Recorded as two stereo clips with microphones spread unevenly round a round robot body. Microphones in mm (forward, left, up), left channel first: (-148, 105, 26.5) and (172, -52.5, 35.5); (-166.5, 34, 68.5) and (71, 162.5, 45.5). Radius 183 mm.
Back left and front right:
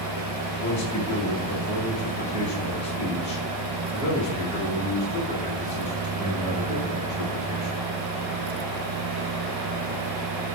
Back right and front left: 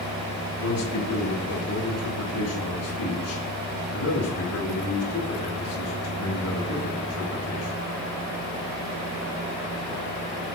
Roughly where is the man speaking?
Behind right.